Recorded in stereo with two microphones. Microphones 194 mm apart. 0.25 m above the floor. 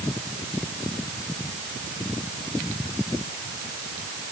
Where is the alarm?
No alarm in this recording.